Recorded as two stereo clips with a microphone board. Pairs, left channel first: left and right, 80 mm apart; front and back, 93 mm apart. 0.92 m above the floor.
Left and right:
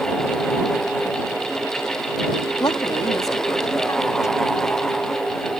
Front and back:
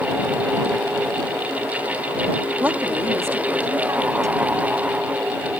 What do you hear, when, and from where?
2.6 s a woman speaking: 110° left; by 4.9 s 135° left